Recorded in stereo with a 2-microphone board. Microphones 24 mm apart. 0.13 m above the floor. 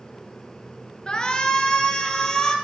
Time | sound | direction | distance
1.1 | a shout | 30° left (ahead or behind) | 1.7 m